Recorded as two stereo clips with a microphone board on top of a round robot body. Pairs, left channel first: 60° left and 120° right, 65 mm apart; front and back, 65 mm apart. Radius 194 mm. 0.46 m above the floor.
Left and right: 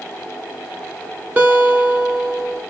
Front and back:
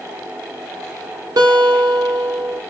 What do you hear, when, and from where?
1.4 s a guitar: 175° left, 0.6 m